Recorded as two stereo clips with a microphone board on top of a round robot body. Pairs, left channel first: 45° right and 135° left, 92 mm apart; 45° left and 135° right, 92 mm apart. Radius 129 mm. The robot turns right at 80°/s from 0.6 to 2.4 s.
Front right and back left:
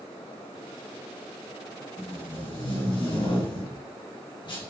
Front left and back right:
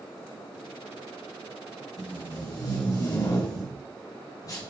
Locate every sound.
2.0 s tape being pulled: 40° right, 4.5 m; by 4.7 s 5° right, 4.5 m